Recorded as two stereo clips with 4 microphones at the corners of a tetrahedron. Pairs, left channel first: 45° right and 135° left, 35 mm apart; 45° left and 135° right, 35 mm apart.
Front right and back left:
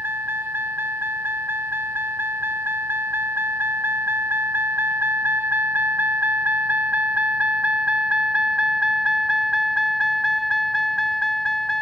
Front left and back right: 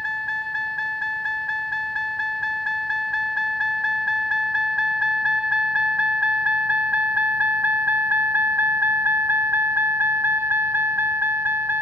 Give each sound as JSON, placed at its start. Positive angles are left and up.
{"t": 0.0, "sound": "a vehicle", "azimuth_deg": 130}